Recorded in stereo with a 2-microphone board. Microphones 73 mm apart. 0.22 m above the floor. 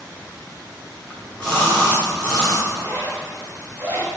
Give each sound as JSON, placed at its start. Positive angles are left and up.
{"t": 1.1, "sound": "a splash", "side_deg": 15, "distance_m": 3.5}
{"t": 2.7, "sound": "a zipper", "side_deg": -25, "distance_m": 2.5}